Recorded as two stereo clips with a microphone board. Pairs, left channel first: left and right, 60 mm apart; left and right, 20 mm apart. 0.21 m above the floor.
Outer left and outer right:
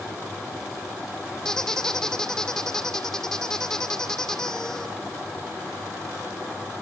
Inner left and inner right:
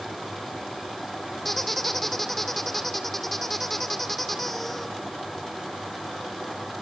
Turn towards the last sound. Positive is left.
turn(degrees=10)  # may be behind; listen again after turning